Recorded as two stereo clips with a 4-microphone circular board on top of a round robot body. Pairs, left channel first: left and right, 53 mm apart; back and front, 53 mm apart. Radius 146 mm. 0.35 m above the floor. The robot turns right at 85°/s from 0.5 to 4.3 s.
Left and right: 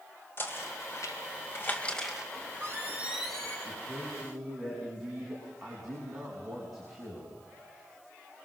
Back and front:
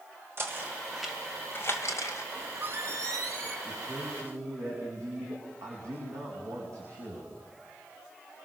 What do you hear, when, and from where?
0.4 s knocking: 45° left, 2 m; by 2.2 s 170° right, 2 m
2.4 s a squeak: 80° right, 2.5 m; by 3.5 s 25° left, 2.5 m
3.6 s a man speaking: 60° right, 5 m; by 7.3 s 5° right, 5 m